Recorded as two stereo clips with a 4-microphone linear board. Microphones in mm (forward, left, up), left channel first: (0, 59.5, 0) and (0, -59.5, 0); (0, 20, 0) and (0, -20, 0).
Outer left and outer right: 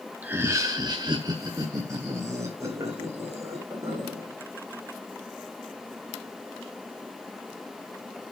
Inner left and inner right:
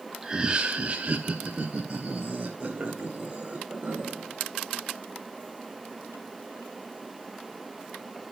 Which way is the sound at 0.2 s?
15° right (ahead or behind).